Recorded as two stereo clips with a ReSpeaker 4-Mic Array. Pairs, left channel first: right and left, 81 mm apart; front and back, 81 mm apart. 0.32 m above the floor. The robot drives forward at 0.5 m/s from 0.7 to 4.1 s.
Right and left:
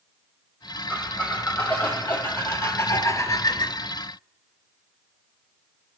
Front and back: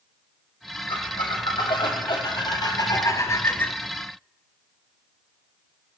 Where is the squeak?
15° right, 1.7 m; by 3.8 s 70° right, 0.5 m.